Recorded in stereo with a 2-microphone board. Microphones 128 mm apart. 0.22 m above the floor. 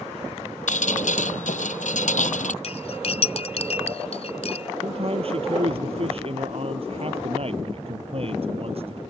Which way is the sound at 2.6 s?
55° left (ahead or behind).